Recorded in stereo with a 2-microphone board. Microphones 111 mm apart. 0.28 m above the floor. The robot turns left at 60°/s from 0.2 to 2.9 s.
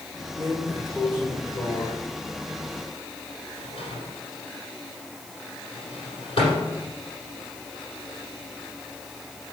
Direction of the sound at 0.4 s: 30° right (ahead or behind).